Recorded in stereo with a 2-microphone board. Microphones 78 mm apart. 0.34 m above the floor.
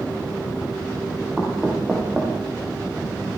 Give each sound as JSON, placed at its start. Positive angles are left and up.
{"t": 1.4, "sound": "knocking", "side_deg": -10, "distance_m": 8.5}